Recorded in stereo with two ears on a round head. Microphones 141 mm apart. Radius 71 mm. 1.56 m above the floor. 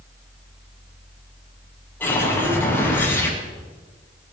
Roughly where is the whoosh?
Centre.